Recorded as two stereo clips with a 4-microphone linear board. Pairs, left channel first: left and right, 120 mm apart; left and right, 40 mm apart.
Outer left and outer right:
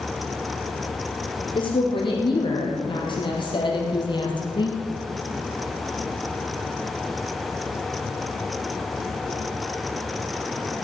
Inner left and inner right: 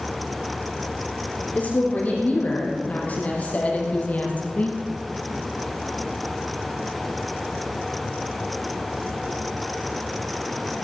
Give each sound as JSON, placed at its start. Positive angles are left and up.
{"t": 1.6, "sound": "a woman speaking", "side_deg": 45, "distance_m": 4.5}